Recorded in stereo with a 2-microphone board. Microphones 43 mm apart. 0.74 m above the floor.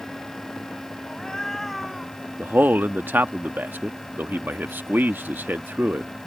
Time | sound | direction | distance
1.1 | a cat meowing | 30° left (ahead or behind) | ?
2.4 | a man speaking | 60° right (ahead or behind) | ?